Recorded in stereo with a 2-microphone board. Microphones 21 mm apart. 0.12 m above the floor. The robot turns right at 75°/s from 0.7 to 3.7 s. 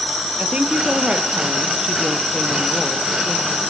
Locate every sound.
0.4 s a woman speaking: 115° right, 3 m; by 3.6 s 100° left, 3 m